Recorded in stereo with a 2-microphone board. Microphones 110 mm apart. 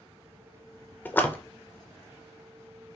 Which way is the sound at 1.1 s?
15° left (ahead or behind).